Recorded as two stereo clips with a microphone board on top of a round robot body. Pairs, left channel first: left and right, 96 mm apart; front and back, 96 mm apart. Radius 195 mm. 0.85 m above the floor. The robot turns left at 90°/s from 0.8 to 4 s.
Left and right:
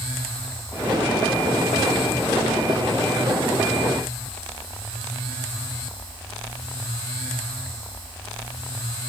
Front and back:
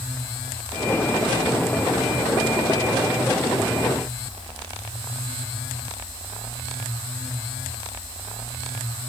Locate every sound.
Only background noise.